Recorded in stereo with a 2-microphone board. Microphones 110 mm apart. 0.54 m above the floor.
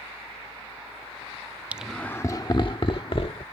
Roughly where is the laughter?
Centre.